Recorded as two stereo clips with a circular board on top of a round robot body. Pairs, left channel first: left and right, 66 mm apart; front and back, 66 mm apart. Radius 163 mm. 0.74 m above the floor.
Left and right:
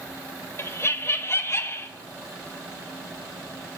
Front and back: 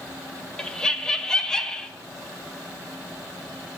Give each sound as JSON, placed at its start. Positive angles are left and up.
{"t": 0.6, "sound": "laughter", "azimuth_deg": 75, "distance_m": 1.0}